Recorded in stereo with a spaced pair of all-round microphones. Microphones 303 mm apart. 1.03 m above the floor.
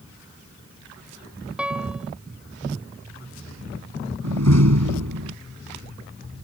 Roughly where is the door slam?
Right.